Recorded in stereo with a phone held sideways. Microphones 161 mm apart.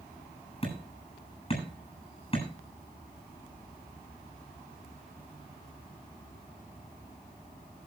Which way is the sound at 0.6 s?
35° left (ahead or behind).